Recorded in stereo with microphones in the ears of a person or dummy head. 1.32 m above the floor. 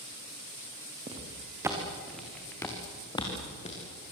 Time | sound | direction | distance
1.1 | footsteps | 25° right (ahead or behind) | 3.5 m